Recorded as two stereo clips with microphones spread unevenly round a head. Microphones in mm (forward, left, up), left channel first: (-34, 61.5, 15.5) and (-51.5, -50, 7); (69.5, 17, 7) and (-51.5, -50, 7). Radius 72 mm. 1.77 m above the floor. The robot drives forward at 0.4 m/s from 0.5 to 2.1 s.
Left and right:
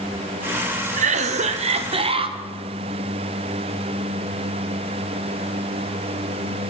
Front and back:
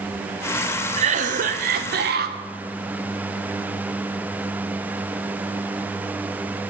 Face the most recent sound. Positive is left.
turn(degrees=-140)